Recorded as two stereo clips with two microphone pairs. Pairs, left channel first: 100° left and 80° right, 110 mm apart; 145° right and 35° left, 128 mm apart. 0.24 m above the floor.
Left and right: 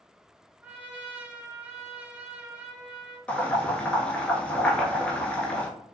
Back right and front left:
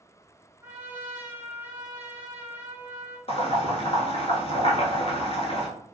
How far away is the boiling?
About 0.6 m.